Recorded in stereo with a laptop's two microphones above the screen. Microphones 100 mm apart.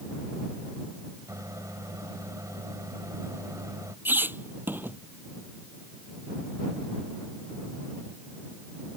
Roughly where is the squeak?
Right.